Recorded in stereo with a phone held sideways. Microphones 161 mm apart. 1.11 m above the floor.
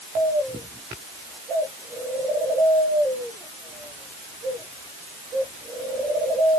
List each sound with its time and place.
Only background noise.